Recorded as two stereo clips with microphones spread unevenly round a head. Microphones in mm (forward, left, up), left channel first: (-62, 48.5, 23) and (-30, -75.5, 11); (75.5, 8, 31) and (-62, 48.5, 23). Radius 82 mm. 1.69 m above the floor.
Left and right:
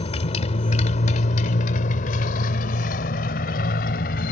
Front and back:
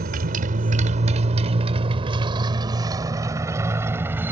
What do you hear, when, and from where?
0.0 s a motorcycle: 140° left; by 4.3 s 85° left